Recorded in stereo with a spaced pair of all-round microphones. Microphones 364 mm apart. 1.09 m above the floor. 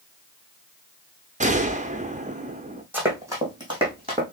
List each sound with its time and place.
1.4 s a gunshot: 20° right (ahead or behind), 0.7 m
2.9 s running footsteps: 5° right (ahead or behind), 3 m; by 4.2 s 15° right (ahead or behind), 3.5 m